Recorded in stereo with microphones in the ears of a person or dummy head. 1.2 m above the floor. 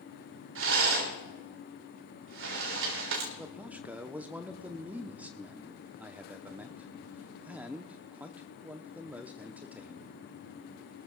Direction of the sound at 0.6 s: 85° right.